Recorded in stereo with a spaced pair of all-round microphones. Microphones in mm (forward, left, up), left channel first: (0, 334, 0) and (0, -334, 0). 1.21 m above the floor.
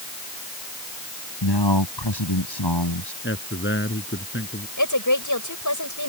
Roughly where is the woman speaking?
Left.